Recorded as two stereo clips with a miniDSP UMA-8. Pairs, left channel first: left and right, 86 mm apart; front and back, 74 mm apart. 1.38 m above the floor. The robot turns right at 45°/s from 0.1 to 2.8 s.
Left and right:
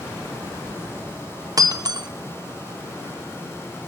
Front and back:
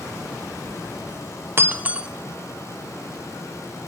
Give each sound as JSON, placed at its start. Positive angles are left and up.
{"t": 1.6, "sound": "breaking glass", "azimuth_deg": -130, "distance_m": 0.9}